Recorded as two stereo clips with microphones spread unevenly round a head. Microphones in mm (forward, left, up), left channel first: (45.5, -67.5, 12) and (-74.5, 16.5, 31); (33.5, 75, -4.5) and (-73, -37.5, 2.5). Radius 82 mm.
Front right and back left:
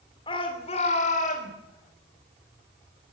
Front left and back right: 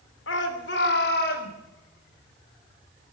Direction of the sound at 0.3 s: 25° left.